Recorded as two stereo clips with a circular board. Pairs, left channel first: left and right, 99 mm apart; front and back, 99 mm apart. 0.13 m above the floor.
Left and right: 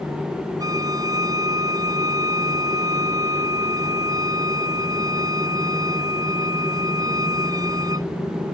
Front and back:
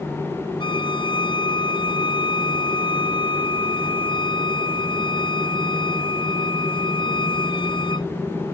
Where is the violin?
35° right.